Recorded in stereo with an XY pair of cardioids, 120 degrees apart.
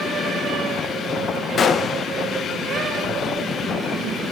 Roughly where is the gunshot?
Ahead left.